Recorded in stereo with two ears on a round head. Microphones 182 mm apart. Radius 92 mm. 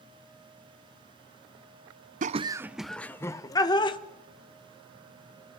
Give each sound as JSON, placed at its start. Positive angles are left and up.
{"t": 2.2, "sound": "laughter", "side_deg": -40, "distance_m": 0.6}